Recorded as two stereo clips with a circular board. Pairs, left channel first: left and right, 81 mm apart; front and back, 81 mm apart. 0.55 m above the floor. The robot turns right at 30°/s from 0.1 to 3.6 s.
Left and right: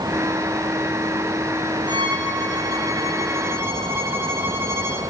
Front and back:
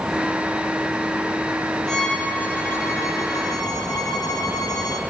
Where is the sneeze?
No sneeze in this recording.